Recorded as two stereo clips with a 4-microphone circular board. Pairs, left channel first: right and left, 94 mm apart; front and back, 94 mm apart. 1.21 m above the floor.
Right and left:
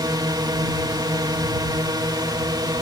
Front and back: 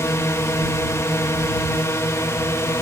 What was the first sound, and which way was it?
A drone, 55° left.